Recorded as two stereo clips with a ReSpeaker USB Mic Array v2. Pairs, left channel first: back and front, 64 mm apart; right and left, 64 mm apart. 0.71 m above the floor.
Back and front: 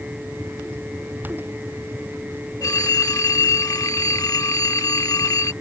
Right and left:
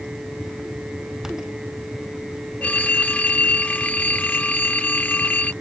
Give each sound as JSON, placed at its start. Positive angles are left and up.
{"t": 2.6, "sound": "a phone ringing", "azimuth_deg": -155}